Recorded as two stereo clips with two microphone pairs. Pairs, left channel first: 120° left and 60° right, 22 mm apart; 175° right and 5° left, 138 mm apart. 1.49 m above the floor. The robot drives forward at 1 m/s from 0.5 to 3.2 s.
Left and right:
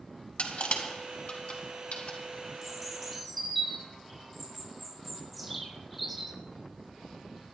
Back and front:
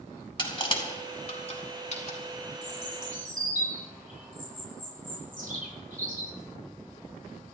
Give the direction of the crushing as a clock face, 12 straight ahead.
8 o'clock.